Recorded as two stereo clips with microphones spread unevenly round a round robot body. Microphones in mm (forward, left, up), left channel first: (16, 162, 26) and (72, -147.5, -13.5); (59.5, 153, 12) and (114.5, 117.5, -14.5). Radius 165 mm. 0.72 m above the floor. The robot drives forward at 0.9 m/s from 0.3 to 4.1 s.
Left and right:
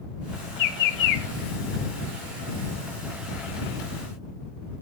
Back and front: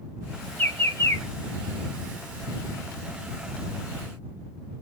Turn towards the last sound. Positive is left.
turn(degrees=150)